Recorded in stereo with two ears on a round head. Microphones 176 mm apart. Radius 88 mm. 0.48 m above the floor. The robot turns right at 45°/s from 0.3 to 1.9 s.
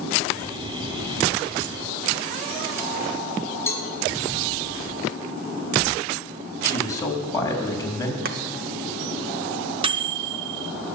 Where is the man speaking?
15° left (ahead or behind), 3.5 m.